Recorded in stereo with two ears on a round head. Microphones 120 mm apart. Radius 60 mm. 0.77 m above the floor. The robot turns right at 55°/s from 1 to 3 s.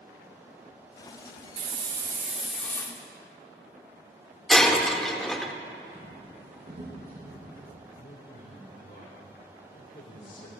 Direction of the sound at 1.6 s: 50° right.